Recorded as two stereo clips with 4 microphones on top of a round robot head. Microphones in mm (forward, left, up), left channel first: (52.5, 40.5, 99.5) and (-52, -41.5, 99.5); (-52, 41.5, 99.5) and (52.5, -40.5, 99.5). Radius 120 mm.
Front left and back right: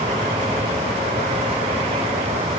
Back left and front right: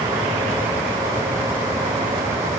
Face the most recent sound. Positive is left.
No sound to turn to.